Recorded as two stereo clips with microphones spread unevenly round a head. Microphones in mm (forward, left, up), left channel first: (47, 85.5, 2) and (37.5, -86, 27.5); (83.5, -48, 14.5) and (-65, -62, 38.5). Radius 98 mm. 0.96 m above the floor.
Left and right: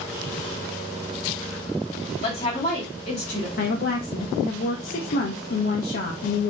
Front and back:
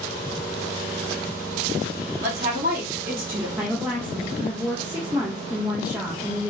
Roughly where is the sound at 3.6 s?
Left.